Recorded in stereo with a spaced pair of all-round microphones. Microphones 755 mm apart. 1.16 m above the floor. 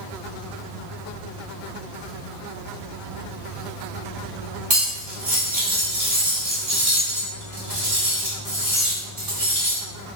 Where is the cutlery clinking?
50° right (ahead or behind), 2.0 m.